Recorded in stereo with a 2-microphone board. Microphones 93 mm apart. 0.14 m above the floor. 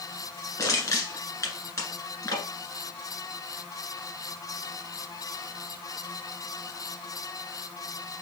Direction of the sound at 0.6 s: 40° left (ahead or behind).